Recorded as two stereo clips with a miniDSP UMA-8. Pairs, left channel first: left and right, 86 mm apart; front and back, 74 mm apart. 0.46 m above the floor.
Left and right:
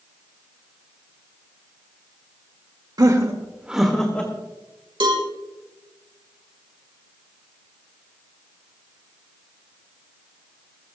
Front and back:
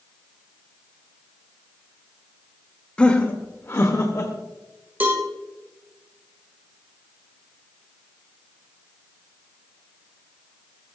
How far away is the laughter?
About 1.7 m.